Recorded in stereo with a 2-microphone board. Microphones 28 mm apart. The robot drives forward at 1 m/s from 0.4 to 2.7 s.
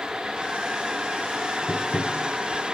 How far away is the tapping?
About 0.8 m.